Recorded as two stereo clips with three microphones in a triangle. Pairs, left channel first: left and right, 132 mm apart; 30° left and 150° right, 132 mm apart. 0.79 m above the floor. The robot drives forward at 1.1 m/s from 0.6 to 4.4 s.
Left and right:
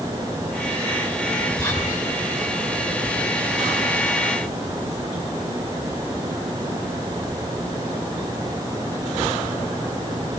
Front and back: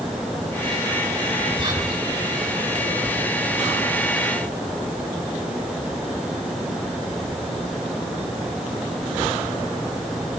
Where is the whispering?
165° left, 6 m.